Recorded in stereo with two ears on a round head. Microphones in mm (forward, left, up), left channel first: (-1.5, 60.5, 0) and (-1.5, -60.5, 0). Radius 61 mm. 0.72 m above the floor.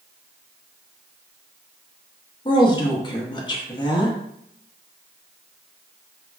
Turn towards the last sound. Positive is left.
turn(degrees=35)  # may be behind; listen again after turning